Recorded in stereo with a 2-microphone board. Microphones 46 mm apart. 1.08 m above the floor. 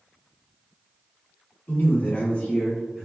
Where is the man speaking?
50° left (ahead or behind), 1.1 m; by 3.1 s 10° right (ahead or behind), 0.7 m.